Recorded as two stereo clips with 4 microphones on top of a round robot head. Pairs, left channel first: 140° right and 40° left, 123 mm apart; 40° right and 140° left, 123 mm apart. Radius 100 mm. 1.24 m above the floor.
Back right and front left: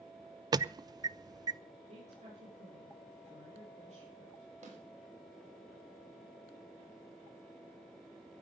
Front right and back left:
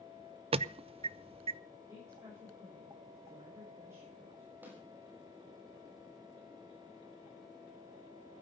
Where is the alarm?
95° left, 0.5 m.